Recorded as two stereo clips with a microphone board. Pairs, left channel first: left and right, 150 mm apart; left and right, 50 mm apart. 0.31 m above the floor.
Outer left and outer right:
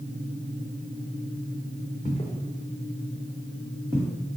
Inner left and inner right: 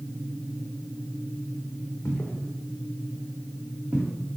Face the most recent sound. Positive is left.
turn(degrees=-25)  # may be behind; listen again after turning